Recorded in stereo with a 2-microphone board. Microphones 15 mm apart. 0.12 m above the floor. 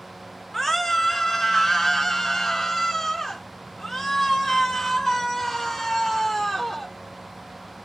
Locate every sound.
0.5 s a scream: 10° left (ahead or behind), 1.7 m; by 6.9 s 20° left (ahead or behind), 2.5 m